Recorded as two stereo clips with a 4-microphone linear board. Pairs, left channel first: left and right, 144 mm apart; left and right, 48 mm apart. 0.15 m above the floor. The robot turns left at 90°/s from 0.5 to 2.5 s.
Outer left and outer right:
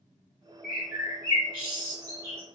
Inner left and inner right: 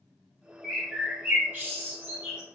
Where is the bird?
5° left, 1.6 m; by 2.4 s 155° right, 1.6 m.